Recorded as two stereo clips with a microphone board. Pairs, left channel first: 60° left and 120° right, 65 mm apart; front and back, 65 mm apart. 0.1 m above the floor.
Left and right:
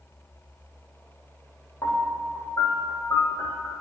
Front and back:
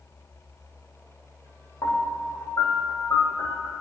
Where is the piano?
30° left, 3.5 m.